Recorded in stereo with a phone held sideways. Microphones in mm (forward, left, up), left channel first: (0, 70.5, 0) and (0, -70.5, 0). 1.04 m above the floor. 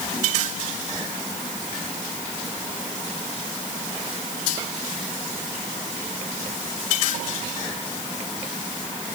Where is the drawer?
I don't hear a drawer.